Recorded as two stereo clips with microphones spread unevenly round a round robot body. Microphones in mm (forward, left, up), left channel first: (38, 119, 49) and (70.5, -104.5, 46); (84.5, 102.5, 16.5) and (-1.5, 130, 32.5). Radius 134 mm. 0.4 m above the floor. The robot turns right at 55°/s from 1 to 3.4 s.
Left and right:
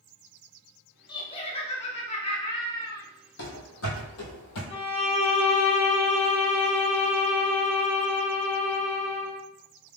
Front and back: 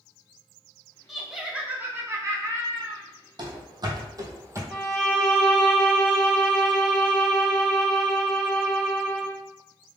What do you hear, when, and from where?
1.1 s laughter: 50° left, 0.8 m; by 3.0 s 160° left, 0.8 m
3.4 s running footsteps: 145° left, 1.2 m; by 4.6 s 110° left, 1.1 m
4.7 s a violin: 50° left, 1.6 m